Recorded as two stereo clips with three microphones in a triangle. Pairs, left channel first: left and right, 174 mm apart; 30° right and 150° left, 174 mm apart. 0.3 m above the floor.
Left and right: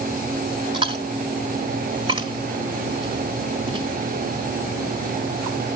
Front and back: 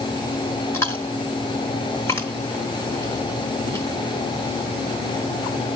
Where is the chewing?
85° right, 1.4 m.